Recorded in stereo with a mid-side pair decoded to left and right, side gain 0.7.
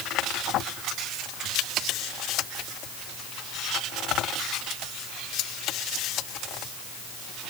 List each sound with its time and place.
Only background noise.